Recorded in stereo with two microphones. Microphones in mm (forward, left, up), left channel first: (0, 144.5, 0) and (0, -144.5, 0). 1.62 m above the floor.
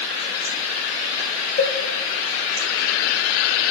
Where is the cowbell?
35° left (ahead or behind), 0.6 m.